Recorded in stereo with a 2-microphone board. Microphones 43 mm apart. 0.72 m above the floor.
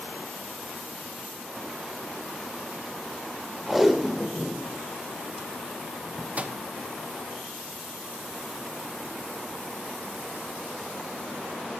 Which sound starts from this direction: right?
A microwave, at 6.4 s.